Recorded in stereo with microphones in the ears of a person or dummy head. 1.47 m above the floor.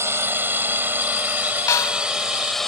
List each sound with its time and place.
0.0 s a drone: 10° right (ahead or behind); by 2.7 s centre (ahead or behind)
1.7 s a snare drum: 15° left (ahead or behind)